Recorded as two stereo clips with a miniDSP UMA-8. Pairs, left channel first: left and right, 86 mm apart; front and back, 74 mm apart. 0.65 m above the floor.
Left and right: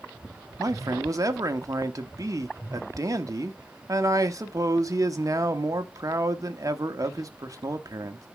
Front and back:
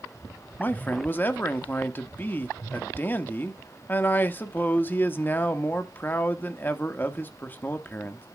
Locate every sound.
0.6 s a man speaking: 55° right, 1.2 m